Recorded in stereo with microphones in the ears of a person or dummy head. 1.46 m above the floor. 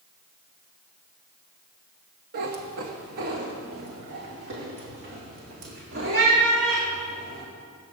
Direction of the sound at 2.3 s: 40° right (ahead or behind).